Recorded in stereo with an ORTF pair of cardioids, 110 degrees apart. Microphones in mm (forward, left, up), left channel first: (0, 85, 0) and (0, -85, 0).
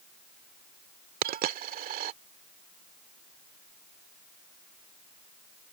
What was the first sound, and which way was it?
A dropped coin, 60° right.